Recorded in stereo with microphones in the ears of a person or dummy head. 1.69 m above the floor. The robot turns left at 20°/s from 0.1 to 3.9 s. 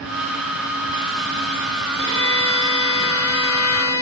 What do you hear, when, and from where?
2.0 s a violin: 30° left, 2.5 m; by 4.0 s 10° right, 2.5 m